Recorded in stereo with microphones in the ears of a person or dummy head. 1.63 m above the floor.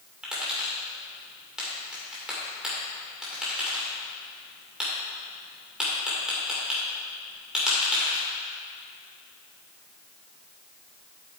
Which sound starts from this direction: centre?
Tapping, at 0.2 s.